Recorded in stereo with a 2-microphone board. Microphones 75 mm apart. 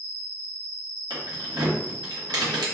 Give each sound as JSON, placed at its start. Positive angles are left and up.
{"t": 0.0, "sound": "an insect", "side_deg": 5, "distance_m": 0.8}
{"t": 1.1, "sound": "keys jangling", "side_deg": -75, "distance_m": 0.9}